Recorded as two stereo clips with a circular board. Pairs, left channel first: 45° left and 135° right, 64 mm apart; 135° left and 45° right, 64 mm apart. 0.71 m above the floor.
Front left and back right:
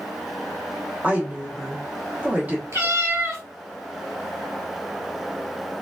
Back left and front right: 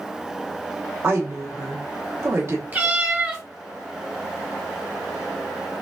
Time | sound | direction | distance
1.0 | a woman speaking | 75° right | 1.1 m
2.7 | a cat meowing | 100° right | 1.6 m